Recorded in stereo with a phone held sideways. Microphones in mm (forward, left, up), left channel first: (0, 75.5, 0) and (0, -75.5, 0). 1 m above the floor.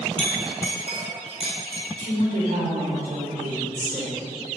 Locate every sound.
0.2 s a clink: 45° right (ahead or behind), 2.5 m
2.0 s a woman speaking: 85° right, 2.5 m